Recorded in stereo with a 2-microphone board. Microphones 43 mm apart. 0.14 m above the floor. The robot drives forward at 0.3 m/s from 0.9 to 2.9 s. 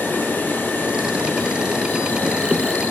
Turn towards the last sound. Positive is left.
turn(degrees=45)  # may be behind; listen again after turning